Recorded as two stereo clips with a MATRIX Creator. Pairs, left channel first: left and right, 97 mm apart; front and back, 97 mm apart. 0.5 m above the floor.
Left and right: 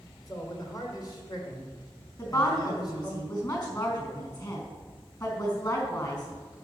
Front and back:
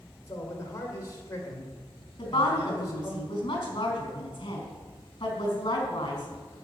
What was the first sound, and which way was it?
A man speaking, 50° left.